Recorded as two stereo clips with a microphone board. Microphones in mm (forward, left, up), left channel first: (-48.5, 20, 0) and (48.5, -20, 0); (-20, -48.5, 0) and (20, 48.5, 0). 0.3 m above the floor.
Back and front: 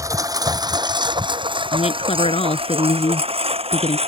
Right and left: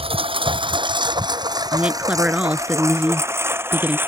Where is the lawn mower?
35° left; by 4.1 s 5° right.